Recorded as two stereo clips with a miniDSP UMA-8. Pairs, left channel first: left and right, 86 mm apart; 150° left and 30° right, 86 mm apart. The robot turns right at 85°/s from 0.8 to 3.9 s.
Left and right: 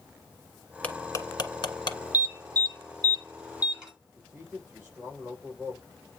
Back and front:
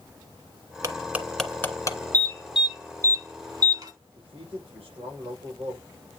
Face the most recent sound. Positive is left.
turn(degrees=-20)